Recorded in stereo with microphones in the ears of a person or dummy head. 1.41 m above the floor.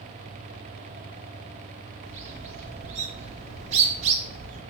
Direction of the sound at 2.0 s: 45° right (ahead or behind).